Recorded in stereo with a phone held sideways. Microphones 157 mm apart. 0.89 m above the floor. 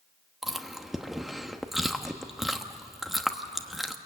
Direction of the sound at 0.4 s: Centre (ahead or behind).